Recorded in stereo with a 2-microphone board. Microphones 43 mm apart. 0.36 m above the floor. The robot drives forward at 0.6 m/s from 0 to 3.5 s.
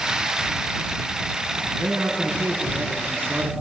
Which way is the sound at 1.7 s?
70° right (ahead or behind).